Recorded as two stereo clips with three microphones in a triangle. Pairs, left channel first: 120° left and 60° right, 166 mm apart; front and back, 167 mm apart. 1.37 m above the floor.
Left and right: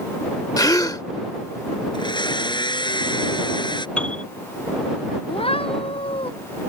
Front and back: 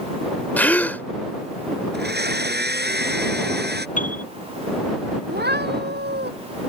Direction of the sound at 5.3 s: 175° left.